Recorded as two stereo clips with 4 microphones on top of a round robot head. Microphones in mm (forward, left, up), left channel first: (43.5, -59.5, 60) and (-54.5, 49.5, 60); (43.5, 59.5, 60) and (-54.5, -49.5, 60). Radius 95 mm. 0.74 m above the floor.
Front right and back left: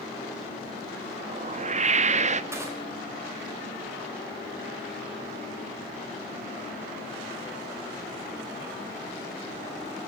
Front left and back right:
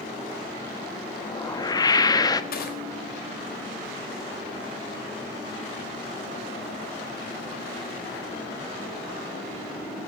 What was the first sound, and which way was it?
A whoosh, 105° left.